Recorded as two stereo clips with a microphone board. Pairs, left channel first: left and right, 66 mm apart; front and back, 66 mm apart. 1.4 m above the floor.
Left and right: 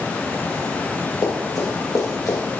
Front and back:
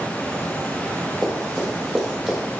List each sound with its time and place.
1.2 s running footsteps: 75° left, 3 m; by 2.4 s 90° left, 2.5 m